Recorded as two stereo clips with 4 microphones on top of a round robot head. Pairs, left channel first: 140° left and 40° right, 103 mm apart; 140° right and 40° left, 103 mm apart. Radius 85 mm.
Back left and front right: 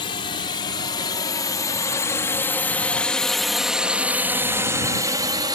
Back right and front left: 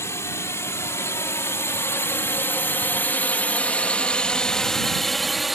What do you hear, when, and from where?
0.0 s a drone: 160° left; by 5.5 s 50° right